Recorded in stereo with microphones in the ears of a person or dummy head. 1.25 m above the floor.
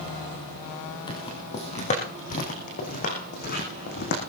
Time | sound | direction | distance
1.1 | footsteps | 20° left (ahead or behind) | 3 m